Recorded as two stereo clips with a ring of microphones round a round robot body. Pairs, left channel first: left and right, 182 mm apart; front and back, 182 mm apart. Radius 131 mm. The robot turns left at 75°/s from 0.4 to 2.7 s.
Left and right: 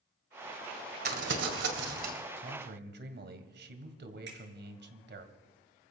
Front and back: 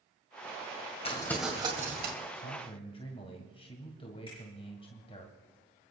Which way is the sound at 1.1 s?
65° right.